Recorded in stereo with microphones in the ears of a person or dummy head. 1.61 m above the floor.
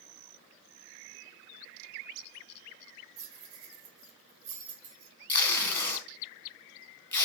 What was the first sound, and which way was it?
Keys jangling, 45° right (ahead or behind).